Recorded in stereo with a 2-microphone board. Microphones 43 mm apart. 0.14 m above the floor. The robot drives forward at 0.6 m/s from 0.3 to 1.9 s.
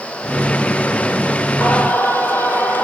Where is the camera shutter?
No camera shutter in this recording.